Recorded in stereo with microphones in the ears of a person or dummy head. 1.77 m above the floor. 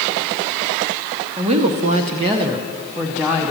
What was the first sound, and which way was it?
A woman speaking, 25° right (ahead or behind).